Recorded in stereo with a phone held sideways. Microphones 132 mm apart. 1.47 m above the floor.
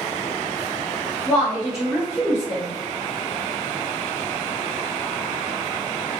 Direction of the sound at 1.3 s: 5° left (ahead or behind).